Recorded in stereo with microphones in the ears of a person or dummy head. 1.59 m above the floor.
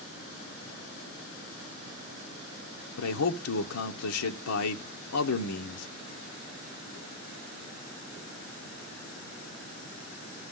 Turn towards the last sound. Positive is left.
turn(degrees=85)